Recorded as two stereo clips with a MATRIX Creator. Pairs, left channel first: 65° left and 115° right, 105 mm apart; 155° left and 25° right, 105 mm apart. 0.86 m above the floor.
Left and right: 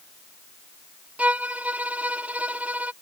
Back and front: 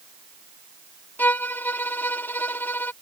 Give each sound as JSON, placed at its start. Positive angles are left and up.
{"t": 1.2, "sound": "a violin", "azimuth_deg": -165}